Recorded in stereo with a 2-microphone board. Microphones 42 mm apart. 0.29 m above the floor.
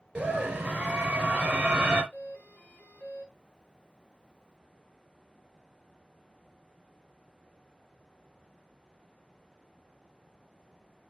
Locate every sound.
0.1 s a scream: 20° right (ahead or behind), 4 m
2.1 s a doorbell: 45° left (ahead or behind), 1.9 m